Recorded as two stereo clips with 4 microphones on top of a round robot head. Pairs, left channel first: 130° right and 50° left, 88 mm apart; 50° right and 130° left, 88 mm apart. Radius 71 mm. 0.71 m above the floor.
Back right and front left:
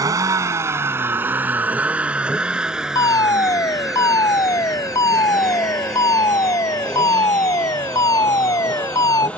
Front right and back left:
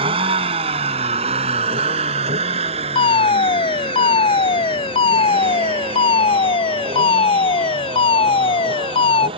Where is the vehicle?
105° left; by 9.4 s 155° left.